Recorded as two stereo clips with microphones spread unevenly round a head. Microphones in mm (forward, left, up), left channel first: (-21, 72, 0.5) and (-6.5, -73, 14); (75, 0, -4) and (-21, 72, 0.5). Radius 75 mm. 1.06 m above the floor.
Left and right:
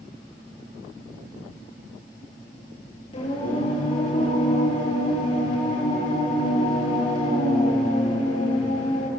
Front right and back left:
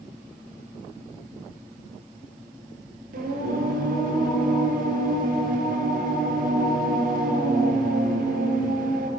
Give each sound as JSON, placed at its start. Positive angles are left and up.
{"t": 3.1, "sound": "singing", "azimuth_deg": 155, "distance_m": 8.5}